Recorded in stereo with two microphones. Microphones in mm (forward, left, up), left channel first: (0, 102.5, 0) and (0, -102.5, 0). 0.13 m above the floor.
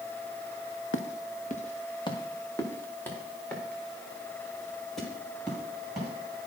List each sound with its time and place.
0.9 s footsteps: 75° left (ahead or behind), 0.9 m; by 6.1 s centre (ahead or behind), 6.5 m